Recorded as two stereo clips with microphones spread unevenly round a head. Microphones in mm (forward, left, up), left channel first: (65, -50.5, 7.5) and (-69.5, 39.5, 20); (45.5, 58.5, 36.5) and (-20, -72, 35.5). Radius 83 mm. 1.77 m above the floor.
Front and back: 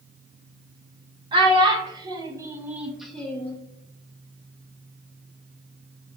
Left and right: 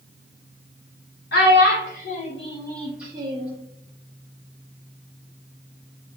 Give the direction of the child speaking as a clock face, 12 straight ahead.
9 o'clock.